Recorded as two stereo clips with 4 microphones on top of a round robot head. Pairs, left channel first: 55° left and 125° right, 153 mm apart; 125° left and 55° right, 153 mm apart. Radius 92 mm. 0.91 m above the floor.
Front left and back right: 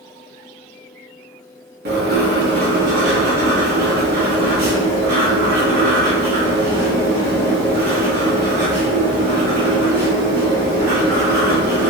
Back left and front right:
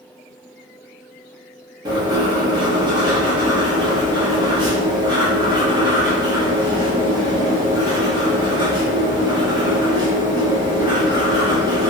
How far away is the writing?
About 0.9 m.